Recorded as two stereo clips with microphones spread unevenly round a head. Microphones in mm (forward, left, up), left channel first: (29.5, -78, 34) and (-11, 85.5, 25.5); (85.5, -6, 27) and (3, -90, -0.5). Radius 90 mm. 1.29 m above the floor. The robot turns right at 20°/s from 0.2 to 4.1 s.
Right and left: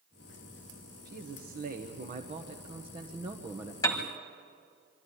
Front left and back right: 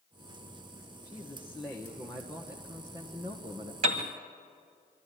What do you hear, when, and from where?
1.1 s a man speaking: 125° left, 1.2 m; by 3.7 s 175° left, 1.2 m
3.8 s a piano: 135° right, 1.4 m; by 4.1 s 130° right, 1.4 m